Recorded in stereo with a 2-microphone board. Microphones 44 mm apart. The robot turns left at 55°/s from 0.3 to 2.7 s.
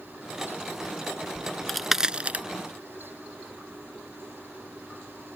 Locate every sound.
1.4 s a crack: 20° left (ahead or behind); by 2.5 s 40° right (ahead or behind)